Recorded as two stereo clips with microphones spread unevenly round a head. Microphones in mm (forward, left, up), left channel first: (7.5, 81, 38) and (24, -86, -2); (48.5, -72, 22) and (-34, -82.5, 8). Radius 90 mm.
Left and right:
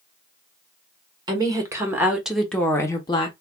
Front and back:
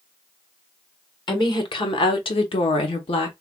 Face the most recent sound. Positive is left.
turn(degrees=35)